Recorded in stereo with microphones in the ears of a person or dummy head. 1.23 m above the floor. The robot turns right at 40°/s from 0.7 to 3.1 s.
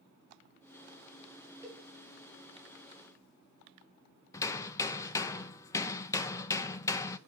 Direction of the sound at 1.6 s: 10° right (ahead or behind).